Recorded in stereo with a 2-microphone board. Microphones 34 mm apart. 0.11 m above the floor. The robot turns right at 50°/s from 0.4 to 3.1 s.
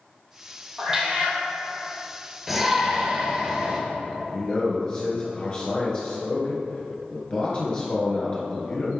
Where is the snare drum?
I don't hear a snare drum.